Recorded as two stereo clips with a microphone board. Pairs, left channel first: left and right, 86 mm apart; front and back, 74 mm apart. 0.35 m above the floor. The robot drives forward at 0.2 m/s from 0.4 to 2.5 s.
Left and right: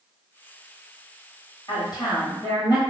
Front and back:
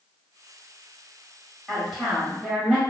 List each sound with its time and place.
1.7 s a woman speaking: 100° left, 1.3 m; by 2.8 s 105° left, 1.3 m